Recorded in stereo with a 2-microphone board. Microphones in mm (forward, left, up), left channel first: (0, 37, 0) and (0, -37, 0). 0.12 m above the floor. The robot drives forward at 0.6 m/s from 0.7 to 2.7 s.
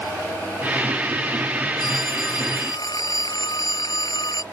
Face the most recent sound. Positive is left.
turn(degrees=65)  # may be behind; listen again after turning